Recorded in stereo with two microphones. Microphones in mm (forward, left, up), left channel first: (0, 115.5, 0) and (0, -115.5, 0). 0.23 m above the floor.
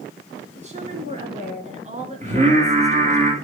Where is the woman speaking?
30° right (ahead or behind), 2.5 m.